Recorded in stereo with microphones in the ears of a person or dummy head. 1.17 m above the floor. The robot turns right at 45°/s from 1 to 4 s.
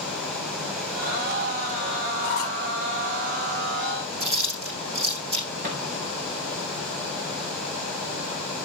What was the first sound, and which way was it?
A squeak, 70° left (ahead or behind).